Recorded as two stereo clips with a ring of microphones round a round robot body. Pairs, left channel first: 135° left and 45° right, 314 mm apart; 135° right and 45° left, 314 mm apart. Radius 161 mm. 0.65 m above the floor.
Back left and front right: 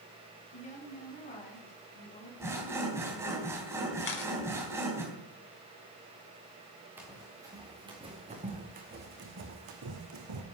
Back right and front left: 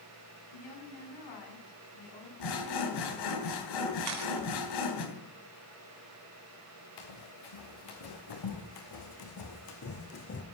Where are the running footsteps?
130° right, 4.5 m; by 10.4 s 75° right, 2.5 m.